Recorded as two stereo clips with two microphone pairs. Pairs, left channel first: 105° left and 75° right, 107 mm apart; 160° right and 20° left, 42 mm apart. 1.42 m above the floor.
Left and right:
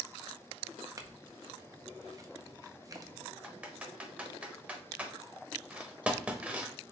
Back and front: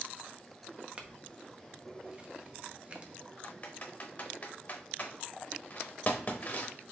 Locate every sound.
1.0 s a clink: 30° right, 0.6 m
3.4 s typing on a keyboard: 145° right, 0.8 m